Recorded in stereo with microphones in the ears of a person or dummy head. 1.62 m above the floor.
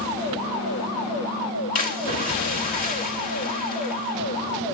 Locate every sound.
1.8 s a splash: 40° left (ahead or behind), 1.6 m